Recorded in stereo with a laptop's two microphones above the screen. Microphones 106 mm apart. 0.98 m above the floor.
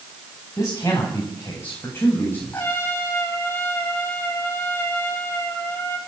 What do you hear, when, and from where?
0.6 s a man speaking: 25° left (ahead or behind), 8 m; by 2.7 s 15° left (ahead or behind), 7.5 m
2.5 s a trumpet: 25° left (ahead or behind), 3.5 m